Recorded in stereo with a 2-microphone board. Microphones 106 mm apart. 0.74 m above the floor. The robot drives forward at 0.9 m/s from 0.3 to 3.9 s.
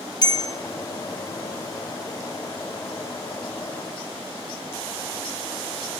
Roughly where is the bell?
Left.